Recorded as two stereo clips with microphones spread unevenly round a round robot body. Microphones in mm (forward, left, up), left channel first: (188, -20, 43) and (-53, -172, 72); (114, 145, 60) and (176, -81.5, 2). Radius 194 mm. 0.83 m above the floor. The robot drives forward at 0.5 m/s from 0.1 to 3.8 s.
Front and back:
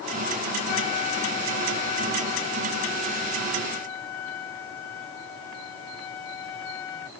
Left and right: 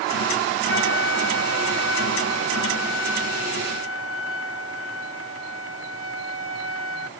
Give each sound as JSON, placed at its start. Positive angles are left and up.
{"t": 0.7, "sound": "a flute", "azimuth_deg": 70}